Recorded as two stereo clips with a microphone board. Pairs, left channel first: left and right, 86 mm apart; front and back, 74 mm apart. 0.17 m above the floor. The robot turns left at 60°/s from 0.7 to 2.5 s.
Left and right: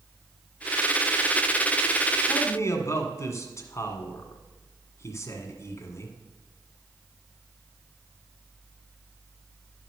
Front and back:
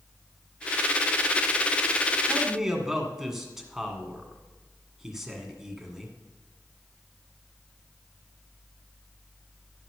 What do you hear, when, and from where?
2.3 s a man speaking: 110° left, 1.5 m; by 6.2 s 95° left, 1.5 m